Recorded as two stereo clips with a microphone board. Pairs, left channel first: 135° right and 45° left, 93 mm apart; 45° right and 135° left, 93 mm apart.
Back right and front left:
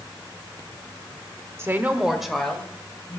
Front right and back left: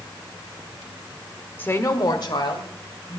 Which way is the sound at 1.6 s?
10° left.